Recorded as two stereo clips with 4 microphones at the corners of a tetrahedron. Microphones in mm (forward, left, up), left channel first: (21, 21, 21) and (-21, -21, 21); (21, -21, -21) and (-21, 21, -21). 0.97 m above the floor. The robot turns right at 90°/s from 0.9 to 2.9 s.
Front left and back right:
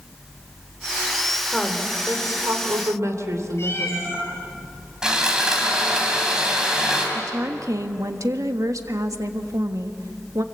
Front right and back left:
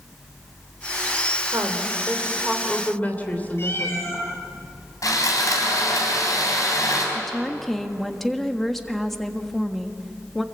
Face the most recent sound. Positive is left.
turn(degrees=-130)